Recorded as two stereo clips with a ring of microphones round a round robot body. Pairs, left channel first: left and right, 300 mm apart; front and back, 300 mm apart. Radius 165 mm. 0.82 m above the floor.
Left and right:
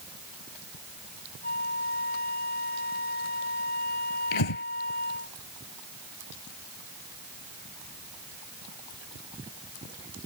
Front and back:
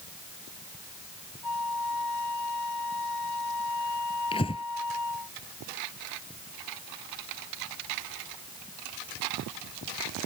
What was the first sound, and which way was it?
A flute, 35° left.